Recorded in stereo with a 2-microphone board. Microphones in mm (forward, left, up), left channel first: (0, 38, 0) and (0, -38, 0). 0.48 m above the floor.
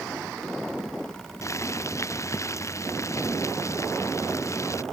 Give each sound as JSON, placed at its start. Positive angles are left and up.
{"t": 1.4, "sound": "boiling", "side_deg": 40}